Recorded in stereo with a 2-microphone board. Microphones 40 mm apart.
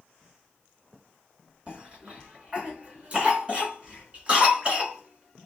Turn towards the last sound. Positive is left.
turn(degrees=-30)  # may be behind; listen again after turning